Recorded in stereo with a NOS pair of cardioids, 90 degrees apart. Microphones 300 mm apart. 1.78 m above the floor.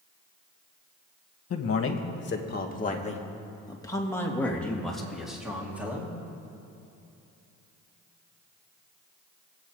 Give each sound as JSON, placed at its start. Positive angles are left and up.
{"t": 1.5, "sound": "a man speaking", "azimuth_deg": 55, "distance_m": 2.0}